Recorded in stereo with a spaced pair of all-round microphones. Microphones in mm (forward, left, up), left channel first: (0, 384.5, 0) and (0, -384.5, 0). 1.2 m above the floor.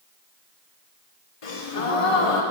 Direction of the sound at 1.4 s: 45° left (ahead or behind).